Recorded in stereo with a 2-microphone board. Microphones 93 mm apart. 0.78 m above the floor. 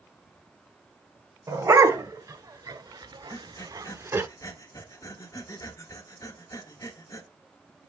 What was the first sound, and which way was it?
A dog barking, 35° right (ahead or behind).